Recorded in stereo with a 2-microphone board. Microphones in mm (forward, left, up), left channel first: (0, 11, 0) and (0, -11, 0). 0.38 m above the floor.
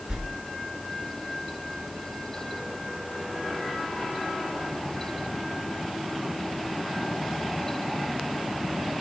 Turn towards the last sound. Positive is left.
turn(degrees=-45)  # may be behind; listen again after turning